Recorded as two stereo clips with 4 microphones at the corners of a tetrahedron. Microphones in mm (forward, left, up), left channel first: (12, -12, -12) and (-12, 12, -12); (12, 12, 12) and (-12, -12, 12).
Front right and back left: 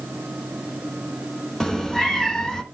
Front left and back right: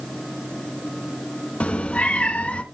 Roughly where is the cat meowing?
Ahead left.